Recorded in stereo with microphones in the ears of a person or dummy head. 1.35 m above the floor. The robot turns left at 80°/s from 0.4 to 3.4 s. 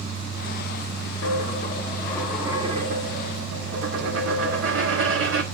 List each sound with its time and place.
1.2 s a dropped coin: 90° left, 1.4 m; by 5.4 s 85° right, 1.4 m